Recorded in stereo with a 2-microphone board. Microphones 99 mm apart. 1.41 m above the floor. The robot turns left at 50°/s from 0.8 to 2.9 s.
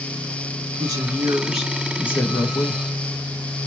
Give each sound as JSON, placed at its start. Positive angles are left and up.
{"t": 0.8, "sound": "a woman speaking", "azimuth_deg": -135, "distance_m": 1.0}